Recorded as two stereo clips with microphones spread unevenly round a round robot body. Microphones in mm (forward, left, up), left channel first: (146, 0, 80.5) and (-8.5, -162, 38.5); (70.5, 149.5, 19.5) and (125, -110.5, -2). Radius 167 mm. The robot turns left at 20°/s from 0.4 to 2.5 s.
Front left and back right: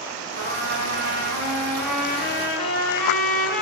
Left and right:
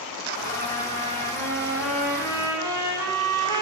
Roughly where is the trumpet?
Behind right.